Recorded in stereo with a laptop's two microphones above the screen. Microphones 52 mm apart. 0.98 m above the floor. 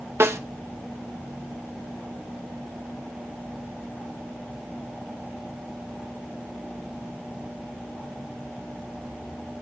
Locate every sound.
0.2 s a snare drum: 55° right (ahead or behind), 1.0 m